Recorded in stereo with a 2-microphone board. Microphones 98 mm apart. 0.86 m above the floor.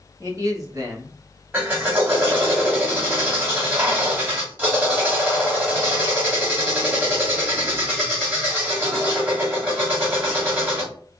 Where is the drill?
20° right (ahead or behind), 2 m.